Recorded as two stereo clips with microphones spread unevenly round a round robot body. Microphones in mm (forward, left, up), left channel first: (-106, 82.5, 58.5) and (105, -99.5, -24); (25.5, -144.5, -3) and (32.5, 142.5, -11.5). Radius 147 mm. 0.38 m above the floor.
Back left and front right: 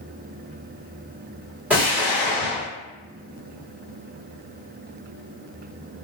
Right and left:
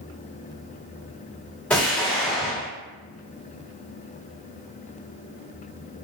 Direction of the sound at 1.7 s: 5° right.